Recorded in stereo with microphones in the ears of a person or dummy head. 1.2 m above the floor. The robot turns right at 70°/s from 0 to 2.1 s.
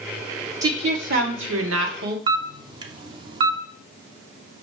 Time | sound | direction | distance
0.6 | a woman speaking | 160° right | 0.9 m
2.3 | a camera shutter | 25° right (ahead or behind) | 0.7 m